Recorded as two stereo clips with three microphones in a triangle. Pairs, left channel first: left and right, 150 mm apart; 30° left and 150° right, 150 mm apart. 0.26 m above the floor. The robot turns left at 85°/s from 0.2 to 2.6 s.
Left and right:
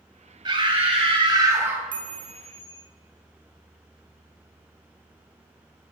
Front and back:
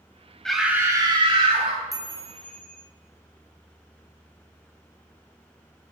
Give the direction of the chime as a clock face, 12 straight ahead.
3 o'clock.